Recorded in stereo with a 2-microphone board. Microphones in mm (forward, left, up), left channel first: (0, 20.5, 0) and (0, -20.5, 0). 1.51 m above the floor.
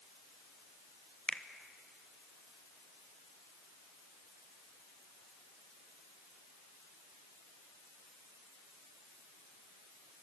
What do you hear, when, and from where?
1.3 s a finger snap: 30° left (ahead or behind), 1.1 m